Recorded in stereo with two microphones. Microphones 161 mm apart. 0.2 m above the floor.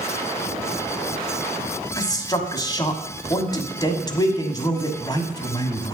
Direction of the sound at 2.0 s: 25° left (ahead or behind).